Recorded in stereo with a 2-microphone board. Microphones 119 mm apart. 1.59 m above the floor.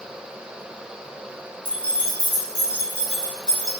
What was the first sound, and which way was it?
Keys jangling, 45° right (ahead or behind).